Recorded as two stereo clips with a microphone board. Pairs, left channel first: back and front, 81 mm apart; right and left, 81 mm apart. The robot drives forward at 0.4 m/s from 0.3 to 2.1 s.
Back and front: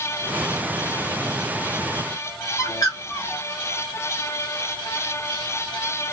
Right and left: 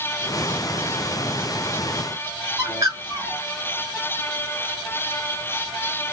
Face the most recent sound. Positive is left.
turn(degrees=135)